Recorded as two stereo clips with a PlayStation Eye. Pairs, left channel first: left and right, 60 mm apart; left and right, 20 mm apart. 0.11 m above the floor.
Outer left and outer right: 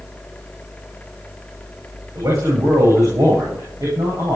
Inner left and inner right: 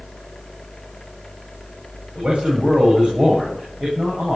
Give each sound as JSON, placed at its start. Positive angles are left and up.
{"t": 2.1, "sound": "a man speaking", "side_deg": -70, "distance_m": 8.5}